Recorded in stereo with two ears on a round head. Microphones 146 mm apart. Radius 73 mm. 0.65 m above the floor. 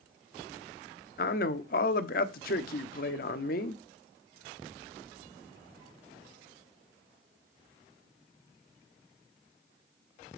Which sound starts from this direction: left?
A man speaking, at 1.2 s.